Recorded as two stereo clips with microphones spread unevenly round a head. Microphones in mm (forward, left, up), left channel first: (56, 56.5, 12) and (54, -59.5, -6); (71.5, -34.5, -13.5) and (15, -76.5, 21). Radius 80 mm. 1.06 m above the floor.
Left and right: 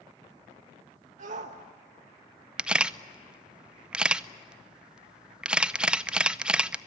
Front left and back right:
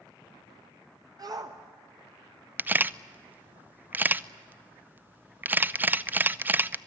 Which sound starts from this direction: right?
A shout, at 1.2 s.